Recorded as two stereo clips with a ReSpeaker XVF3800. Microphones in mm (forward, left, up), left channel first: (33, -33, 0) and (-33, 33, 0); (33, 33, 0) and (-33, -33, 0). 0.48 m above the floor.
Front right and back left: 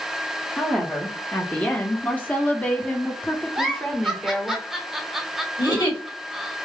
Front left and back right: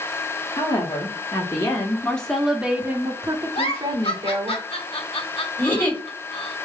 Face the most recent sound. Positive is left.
turn(degrees=-20)